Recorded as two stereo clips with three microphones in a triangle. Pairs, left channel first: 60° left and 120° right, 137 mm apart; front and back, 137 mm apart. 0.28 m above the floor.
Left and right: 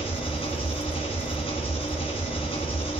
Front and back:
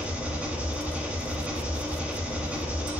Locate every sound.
0.0 s an engine running: 100° left, 1.5 m